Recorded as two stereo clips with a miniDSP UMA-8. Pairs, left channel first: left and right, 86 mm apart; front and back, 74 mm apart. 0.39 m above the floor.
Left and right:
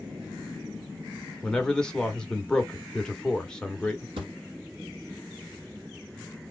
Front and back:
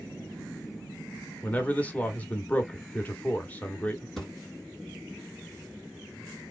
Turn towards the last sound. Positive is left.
turn(degrees=-90)